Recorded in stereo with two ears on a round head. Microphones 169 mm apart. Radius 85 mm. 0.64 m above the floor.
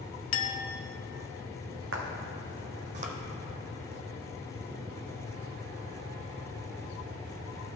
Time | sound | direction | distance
0.3 | a clink | 70° left (ahead or behind) | 0.7 m
1.9 | footsteps | 65° right (ahead or behind) | 1.7 m